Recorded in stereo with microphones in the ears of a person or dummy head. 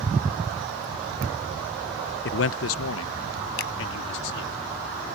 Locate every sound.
2.2 s a man speaking: 50° left (ahead or behind); by 4.6 s 65° left (ahead or behind)
3.6 s a finger snap: 70° left (ahead or behind)